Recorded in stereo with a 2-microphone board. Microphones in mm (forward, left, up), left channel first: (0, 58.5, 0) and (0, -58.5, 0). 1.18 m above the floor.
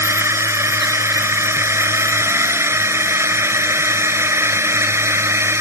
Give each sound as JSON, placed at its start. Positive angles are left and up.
{"t": 0.0, "sound": "a drone", "side_deg": -20}